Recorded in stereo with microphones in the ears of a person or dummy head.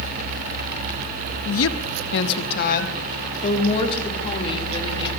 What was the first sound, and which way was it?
A woman speaking, 80° left.